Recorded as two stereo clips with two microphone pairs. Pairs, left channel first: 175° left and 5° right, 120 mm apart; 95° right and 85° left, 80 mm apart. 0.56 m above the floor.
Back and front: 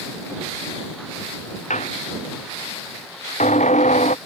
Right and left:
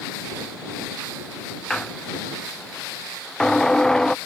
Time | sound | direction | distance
1.7 | a squeak | straight behind | ?